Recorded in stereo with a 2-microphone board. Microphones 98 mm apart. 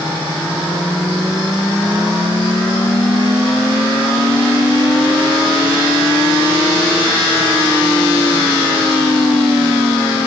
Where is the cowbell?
No cowbell in this recording.